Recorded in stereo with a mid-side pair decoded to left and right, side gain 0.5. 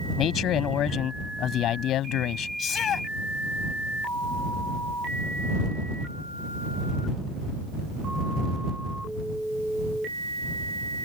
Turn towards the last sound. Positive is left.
turn(degrees=60)